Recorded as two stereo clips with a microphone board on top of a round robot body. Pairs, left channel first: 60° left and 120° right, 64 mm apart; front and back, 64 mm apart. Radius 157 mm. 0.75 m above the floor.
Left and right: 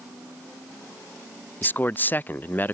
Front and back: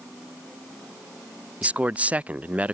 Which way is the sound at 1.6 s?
120° left.